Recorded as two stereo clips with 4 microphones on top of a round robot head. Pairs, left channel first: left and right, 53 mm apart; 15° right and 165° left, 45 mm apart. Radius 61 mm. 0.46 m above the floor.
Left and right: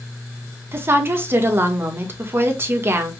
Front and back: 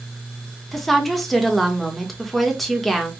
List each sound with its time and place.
0.7 s a woman speaking: 100° right, 1.3 m